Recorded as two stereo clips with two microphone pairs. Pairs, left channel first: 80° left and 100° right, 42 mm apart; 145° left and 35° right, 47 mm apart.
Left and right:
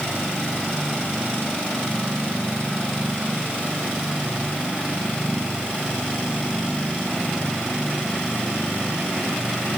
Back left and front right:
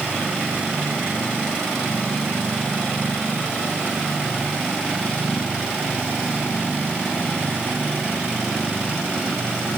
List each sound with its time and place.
Only background noise.